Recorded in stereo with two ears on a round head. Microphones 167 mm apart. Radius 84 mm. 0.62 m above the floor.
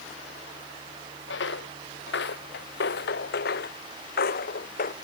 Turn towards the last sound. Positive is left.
turn(degrees=50)  # may be behind; listen again after turning